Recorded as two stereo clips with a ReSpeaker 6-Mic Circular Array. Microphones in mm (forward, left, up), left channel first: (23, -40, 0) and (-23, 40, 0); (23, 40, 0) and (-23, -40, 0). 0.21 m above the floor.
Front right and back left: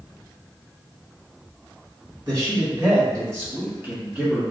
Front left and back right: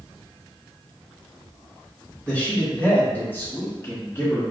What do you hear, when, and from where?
2.3 s a man speaking: 135° left, 1.6 m; by 4.4 s 55° left, 1.2 m